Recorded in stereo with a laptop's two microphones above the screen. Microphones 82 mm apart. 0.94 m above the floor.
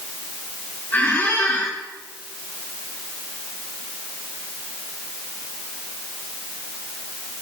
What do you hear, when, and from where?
0.9 s a squeak: 20° left (ahead or behind), 4.5 m